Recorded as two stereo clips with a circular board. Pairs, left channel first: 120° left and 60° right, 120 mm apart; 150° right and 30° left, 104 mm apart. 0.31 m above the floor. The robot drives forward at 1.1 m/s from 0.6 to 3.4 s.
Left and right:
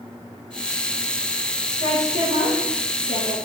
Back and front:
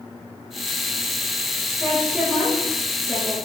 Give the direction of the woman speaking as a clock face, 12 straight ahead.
2 o'clock.